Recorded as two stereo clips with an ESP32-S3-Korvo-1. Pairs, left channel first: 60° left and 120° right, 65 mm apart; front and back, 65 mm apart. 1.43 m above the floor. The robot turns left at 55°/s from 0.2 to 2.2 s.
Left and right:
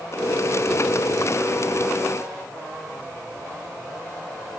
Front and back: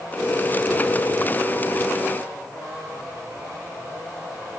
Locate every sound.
Only background noise.